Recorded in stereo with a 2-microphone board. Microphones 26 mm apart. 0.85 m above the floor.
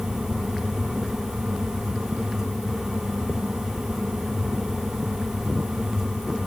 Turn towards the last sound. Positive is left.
No sound to turn to.